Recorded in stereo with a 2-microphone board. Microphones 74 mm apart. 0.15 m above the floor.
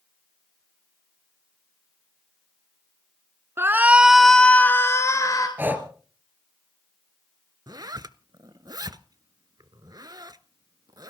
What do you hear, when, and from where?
3.6 s a shout: 35° right (ahead or behind), 1.5 m; by 5.5 s 50° left (ahead or behind), 2 m
5.6 s breathing: 25° right (ahead or behind), 2 m
7.7 s a zipper: 60° right (ahead or behind), 0.7 m